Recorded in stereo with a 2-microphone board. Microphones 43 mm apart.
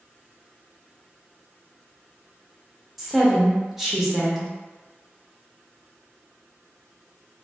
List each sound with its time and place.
3.0 s a woman speaking: 5° right (ahead or behind), 0.7 m